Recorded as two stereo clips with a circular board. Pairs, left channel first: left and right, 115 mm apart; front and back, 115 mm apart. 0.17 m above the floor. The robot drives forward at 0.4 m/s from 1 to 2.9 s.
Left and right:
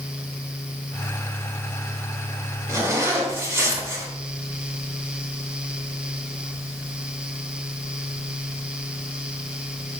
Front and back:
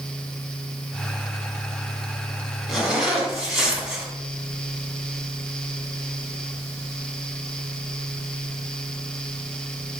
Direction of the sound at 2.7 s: 95° right.